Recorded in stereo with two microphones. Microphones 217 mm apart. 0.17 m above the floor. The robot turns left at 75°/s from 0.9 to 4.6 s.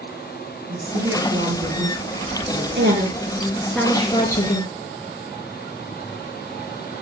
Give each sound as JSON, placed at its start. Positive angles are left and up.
{"t": 0.7, "sound": "a woman speaking", "azimuth_deg": -90, "distance_m": 3.5}
{"t": 2.8, "sound": "a woman speaking", "azimuth_deg": -110, "distance_m": 3.0}